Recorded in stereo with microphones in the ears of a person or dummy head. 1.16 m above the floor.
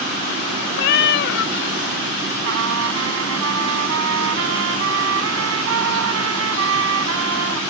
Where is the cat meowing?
60° left (ahead or behind).